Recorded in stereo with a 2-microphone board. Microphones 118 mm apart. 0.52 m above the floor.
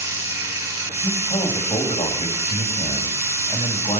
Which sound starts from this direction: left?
A man speaking, at 1.0 s.